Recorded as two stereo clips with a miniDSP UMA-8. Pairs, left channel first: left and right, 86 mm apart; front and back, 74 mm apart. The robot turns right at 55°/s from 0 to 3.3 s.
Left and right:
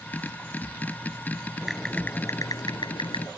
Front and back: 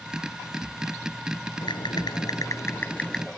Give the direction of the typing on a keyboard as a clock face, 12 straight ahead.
12 o'clock.